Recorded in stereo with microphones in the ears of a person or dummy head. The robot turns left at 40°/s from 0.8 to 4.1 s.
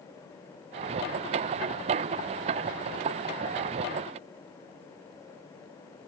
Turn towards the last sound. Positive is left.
No sound to turn to.